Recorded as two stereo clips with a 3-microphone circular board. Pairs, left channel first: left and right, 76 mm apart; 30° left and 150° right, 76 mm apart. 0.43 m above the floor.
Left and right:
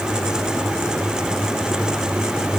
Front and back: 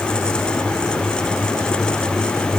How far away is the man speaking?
I don't hear a man speaking.